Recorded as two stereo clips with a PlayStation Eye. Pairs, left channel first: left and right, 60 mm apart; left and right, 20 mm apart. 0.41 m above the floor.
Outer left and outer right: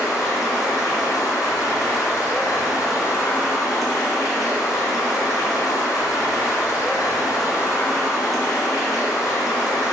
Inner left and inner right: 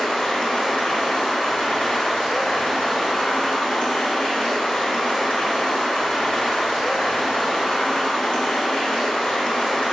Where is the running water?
70° left (ahead or behind), 2.5 m.